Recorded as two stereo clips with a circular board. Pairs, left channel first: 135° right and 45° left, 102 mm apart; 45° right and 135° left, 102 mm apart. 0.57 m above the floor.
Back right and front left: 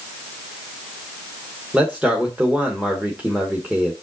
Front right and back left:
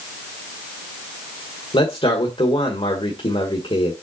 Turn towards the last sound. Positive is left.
turn(degrees=-30)